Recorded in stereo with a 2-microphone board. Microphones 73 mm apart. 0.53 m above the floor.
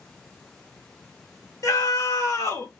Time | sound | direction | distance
1.6 | a scream | 45° left (ahead or behind) | 1.6 m